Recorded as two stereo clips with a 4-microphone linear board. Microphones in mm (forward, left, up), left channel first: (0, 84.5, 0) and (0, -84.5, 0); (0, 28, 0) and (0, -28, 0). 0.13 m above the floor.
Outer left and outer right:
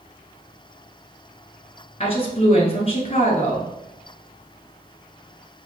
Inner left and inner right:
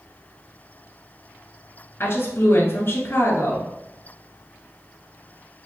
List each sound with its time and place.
2.0 s a woman speaking: 35° left (ahead or behind), 1.5 m